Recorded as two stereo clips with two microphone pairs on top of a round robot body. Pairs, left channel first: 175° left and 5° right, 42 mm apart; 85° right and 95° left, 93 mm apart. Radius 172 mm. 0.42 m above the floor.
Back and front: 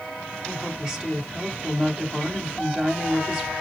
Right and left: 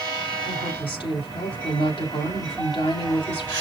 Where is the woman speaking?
80° right, 3 m.